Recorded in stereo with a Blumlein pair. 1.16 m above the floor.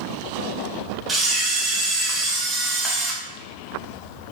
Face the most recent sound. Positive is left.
turn(degrees=-10)